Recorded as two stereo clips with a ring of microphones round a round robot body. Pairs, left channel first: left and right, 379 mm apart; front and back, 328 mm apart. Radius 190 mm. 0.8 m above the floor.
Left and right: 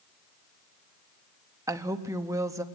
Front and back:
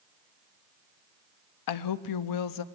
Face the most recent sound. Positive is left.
turn(degrees=-10)